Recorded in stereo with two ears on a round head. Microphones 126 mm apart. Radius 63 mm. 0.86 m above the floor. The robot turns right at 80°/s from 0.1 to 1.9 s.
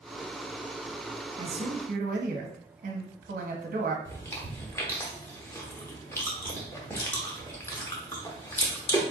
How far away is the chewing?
About 0.9 m.